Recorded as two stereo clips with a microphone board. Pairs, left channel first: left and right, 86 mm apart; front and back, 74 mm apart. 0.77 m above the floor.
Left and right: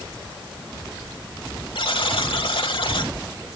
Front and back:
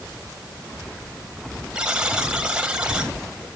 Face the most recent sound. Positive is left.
turn(degrees=105)